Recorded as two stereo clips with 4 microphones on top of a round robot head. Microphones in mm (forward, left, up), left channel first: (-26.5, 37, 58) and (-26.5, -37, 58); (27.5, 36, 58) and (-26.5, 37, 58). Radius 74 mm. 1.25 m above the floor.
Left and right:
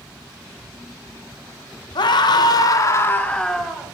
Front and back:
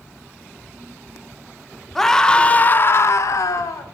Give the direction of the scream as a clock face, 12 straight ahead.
9 o'clock.